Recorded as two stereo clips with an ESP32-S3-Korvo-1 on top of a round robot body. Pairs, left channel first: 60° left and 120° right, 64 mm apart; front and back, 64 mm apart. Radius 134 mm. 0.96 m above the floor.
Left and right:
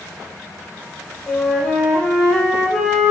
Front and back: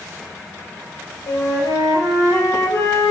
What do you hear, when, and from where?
1.3 s a flute: 25° right, 3 m